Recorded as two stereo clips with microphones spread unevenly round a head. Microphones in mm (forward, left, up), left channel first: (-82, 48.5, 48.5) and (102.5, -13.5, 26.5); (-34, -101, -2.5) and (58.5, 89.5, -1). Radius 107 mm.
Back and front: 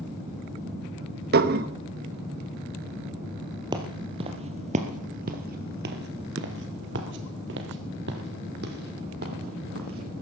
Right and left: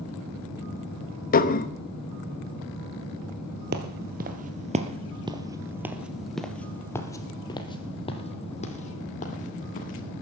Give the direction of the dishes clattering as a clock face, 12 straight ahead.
2 o'clock.